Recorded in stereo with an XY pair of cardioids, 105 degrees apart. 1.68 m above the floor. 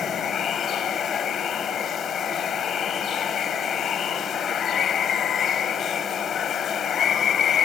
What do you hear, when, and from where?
0.0 s running water: 55° left